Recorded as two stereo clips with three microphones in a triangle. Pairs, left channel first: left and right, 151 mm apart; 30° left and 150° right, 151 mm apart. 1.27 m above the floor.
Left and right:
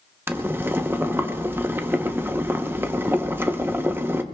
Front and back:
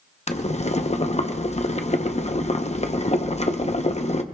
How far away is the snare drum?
I don't hear a snare drum.